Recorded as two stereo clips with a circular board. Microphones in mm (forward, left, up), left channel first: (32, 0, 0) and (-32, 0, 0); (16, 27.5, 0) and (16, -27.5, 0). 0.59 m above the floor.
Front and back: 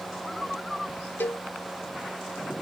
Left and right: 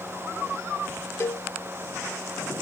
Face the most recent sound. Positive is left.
turn(degrees=55)